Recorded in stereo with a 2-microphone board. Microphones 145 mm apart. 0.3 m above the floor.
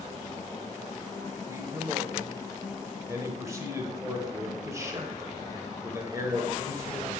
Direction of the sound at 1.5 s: 20° right (ahead or behind).